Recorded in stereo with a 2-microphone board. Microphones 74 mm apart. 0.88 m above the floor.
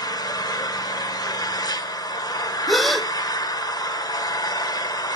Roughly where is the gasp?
Centre.